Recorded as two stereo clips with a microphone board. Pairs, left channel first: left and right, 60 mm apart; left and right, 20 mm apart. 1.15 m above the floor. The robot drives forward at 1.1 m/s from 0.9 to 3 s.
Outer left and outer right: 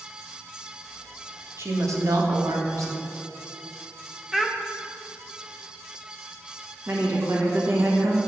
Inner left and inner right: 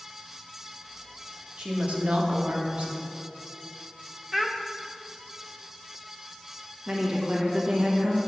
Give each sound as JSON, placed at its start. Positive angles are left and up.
{"t": 1.6, "sound": "a woman speaking", "side_deg": -50, "distance_m": 1.4}
{"t": 4.3, "sound": "a child speaking", "side_deg": -5, "distance_m": 0.6}
{"t": 6.9, "sound": "a woman speaking", "side_deg": -45, "distance_m": 1.3}